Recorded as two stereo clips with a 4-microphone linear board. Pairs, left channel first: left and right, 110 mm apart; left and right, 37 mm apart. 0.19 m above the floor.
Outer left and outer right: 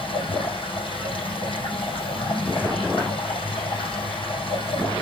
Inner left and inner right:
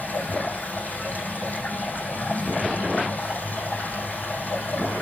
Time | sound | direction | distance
0.0 | running water | 55° left (ahead or behind) | 5.5 m